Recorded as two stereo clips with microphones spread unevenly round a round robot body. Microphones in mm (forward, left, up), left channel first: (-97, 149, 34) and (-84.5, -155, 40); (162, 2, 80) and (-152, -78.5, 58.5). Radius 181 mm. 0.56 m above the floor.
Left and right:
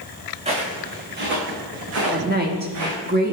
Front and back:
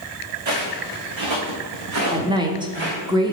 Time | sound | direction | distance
0.5 | footsteps | 160° right | 3 m
2.1 | a woman speaking | 110° right | 1.2 m